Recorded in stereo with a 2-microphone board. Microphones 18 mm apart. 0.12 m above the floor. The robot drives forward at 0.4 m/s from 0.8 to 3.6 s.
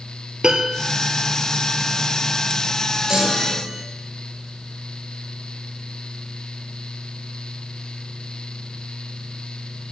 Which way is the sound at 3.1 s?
40° right (ahead or behind).